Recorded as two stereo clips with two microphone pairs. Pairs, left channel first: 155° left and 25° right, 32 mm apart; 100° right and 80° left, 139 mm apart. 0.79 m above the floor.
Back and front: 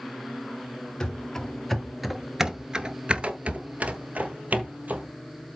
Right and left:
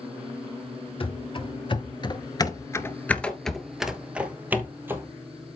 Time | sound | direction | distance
1.0 | running footsteps | 135° right | 1.2 m